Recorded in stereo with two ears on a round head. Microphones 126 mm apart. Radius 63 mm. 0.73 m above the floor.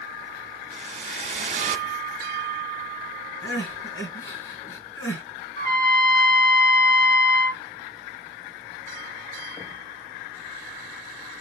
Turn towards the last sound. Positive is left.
turn(degrees=25)  # may be behind; listen again after turning